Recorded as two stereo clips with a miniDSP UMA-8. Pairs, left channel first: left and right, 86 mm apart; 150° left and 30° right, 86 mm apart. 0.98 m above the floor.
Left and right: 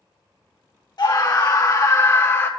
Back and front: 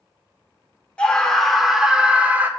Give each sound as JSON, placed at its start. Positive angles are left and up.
{"t": 1.0, "sound": "a scream", "azimuth_deg": 75, "distance_m": 1.4}